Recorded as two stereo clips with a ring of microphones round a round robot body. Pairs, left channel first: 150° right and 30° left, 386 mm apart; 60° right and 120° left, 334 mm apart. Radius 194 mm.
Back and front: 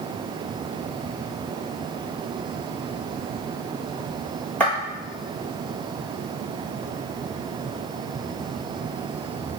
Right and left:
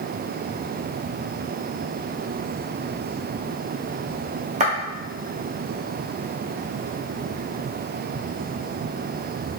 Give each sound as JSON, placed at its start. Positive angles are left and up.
{"t": 4.6, "sound": "footsteps", "azimuth_deg": 130, "distance_m": 0.8}